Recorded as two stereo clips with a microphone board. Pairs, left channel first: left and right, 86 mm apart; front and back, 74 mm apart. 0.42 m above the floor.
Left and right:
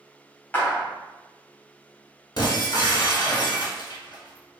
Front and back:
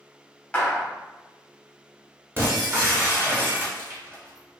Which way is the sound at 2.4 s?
120° left.